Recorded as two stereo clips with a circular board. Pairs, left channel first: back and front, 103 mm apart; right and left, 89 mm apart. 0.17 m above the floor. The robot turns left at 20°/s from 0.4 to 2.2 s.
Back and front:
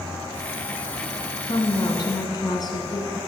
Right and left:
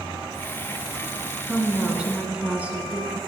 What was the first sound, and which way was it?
A woman speaking, 175° left.